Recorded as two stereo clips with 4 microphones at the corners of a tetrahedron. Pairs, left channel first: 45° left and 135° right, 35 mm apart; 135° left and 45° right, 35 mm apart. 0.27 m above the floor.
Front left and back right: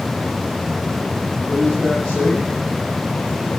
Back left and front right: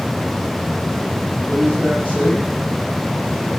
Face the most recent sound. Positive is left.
turn(degrees=95)